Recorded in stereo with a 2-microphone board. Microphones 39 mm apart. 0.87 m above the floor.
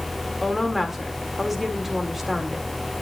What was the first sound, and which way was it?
A woman speaking, 5° right (ahead or behind).